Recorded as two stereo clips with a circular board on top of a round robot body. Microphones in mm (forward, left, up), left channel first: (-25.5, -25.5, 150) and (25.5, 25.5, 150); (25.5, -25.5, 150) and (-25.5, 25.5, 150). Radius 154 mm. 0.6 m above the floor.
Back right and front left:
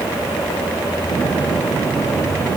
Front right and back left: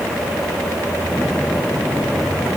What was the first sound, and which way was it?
Only background noise.